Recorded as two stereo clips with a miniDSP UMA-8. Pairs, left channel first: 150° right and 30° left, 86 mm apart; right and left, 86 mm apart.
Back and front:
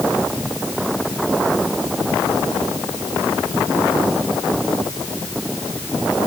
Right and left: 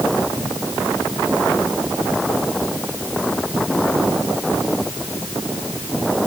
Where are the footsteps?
No footsteps in this recording.